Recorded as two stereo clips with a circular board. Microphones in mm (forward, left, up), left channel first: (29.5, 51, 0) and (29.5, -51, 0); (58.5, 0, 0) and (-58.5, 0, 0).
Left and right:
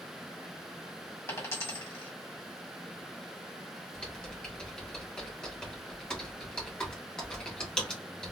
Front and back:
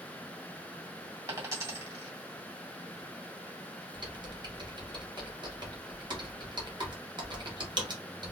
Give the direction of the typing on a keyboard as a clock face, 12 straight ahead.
6 o'clock.